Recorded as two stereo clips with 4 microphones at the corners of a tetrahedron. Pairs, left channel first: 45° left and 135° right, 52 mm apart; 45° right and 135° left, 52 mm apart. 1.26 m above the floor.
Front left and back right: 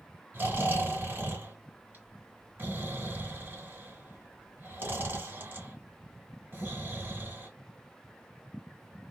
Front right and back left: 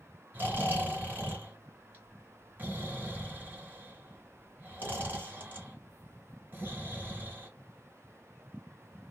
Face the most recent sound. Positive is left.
turn(degrees=180)